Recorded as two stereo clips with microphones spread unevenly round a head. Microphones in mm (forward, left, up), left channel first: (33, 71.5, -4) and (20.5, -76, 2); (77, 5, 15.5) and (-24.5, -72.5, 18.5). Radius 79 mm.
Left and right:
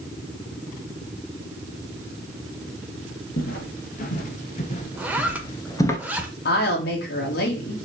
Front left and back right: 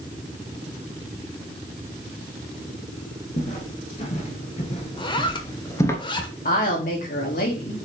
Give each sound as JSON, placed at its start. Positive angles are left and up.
{"t": 3.4, "sound": "footsteps", "azimuth_deg": 75, "distance_m": 2.0}
{"t": 5.0, "sound": "a zipper", "azimuth_deg": -15, "distance_m": 1.5}
{"t": 6.5, "sound": "a woman speaking", "azimuth_deg": 70, "distance_m": 2.5}